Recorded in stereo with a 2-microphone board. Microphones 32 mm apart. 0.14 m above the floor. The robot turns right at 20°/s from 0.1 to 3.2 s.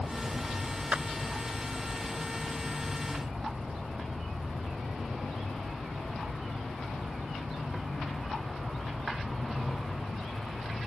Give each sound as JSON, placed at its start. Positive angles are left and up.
{"t": 0.9, "sound": "a clap", "side_deg": -45}